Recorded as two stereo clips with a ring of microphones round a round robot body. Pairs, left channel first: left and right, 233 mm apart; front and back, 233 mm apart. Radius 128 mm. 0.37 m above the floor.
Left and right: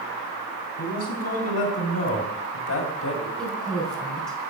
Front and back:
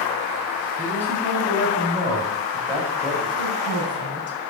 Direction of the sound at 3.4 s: 5° left.